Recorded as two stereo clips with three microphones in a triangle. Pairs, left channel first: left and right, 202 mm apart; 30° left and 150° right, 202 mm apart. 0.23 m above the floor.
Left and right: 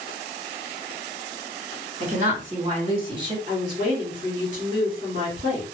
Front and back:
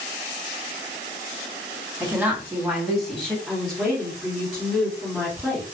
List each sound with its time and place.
2.0 s a woman speaking: 75° right, 1.7 m; by 3.4 s 50° right, 1.3 m
3.5 s a woman speaking: 70° right, 1.7 m